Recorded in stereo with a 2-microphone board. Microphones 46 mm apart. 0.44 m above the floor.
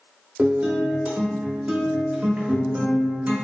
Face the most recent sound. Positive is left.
turn(degrees=-25)  # may be behind; listen again after turning